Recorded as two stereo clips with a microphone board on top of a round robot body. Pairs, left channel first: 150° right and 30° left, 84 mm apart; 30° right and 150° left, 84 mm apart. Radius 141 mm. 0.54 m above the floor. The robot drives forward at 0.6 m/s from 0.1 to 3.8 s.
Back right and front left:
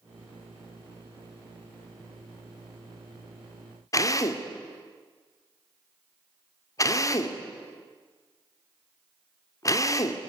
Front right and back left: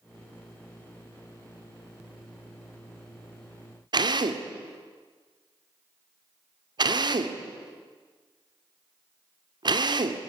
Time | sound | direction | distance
3.9 | a drill | 165° left | 2 m